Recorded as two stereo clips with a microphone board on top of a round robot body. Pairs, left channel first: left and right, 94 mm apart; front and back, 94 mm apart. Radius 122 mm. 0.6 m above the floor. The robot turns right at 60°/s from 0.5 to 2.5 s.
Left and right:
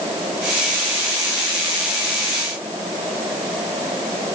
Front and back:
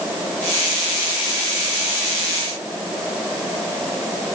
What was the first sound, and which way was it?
Only background noise.